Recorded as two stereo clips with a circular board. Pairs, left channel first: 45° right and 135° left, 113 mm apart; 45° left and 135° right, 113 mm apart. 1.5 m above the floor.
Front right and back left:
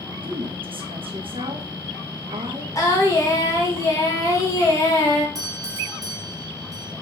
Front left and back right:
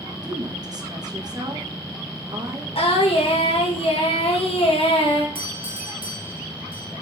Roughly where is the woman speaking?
Behind.